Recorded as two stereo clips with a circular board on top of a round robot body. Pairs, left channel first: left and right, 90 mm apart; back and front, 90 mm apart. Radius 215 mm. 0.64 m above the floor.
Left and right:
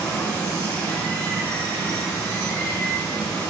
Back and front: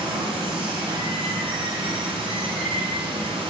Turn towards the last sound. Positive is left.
turn(degrees=15)